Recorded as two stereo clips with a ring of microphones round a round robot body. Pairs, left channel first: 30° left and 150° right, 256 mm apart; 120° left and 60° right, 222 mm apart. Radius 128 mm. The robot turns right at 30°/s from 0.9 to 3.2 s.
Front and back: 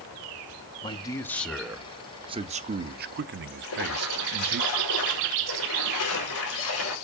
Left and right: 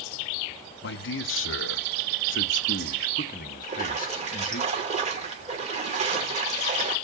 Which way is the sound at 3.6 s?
Straight ahead.